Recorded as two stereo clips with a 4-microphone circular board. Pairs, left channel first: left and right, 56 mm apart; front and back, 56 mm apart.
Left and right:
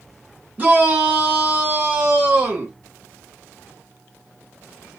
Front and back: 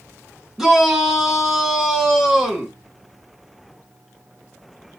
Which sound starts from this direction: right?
A shout, at 0.6 s.